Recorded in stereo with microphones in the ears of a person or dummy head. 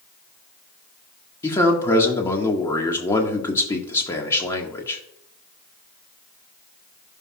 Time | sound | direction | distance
1.4 | a man speaking | 25° left (ahead or behind) | 1.6 m